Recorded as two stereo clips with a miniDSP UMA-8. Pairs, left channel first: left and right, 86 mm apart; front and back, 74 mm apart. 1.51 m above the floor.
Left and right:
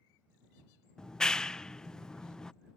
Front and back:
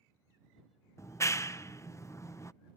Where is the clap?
10° left.